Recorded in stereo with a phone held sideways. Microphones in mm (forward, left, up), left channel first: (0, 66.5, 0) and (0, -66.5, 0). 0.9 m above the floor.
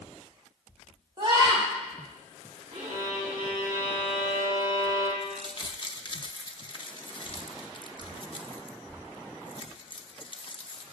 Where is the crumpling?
40° left (ahead or behind), 0.7 m.